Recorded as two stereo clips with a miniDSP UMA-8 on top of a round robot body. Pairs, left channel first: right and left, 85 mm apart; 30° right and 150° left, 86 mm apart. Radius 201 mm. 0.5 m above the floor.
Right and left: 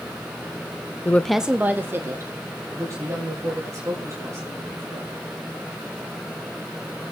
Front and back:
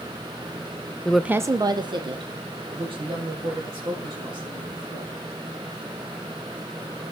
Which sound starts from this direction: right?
A woman speaking, at 1.1 s.